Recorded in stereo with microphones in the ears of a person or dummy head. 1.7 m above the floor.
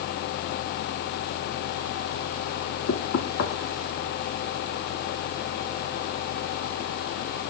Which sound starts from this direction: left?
Knocking, at 2.9 s.